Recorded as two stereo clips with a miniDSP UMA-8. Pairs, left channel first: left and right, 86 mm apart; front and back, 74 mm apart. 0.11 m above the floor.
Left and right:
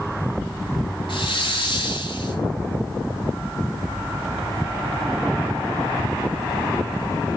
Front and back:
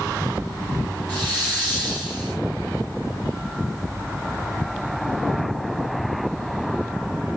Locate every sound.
1.1 s a hiss: 75° left, 4.5 m